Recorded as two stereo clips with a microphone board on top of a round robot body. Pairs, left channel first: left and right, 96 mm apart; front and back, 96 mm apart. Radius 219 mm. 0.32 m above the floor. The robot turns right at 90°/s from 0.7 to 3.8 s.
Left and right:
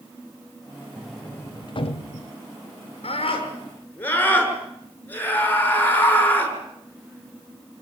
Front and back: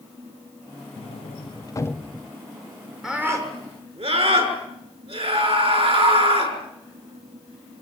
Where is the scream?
95° left, 6.5 m; by 6.5 s 160° left, 6.5 m.